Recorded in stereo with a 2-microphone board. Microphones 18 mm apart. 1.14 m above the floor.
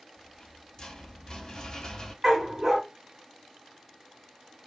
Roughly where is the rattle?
Left.